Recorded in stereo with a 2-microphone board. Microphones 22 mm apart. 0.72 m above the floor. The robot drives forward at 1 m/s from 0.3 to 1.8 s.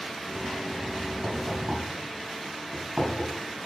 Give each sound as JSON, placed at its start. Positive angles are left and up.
{"t": 1.2, "sound": "knocking", "side_deg": -80, "distance_m": 4.0}